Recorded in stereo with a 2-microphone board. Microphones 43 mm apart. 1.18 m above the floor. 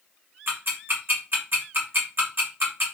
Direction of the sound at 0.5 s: 55° right (ahead or behind).